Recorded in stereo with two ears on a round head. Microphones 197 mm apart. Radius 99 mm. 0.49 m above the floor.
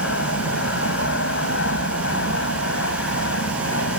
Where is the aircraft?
55° left (ahead or behind).